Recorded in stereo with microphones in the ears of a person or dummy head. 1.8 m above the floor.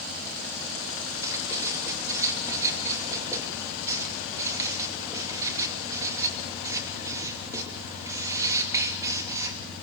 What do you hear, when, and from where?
1.2 s writing: 15° right (ahead or behind), 3 m